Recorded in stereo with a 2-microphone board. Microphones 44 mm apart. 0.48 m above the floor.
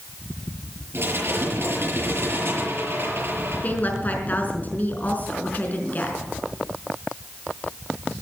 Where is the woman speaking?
40° left (ahead or behind), 4.5 m.